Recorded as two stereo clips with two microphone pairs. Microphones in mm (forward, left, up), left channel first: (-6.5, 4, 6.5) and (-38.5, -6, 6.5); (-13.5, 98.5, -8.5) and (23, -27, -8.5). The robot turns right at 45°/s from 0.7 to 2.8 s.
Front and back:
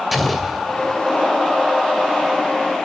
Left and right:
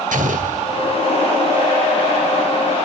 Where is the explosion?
75° right, 2.5 m; by 1.0 s 65° right, 2.5 m.